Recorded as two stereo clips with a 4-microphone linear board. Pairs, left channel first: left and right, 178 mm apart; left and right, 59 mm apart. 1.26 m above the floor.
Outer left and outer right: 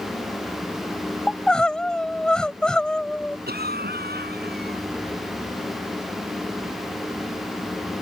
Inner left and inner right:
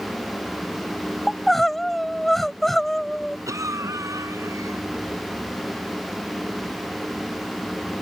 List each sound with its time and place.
1.3 s crying: 5° left (ahead or behind)
3.5 s a cough: 60° right (ahead or behind)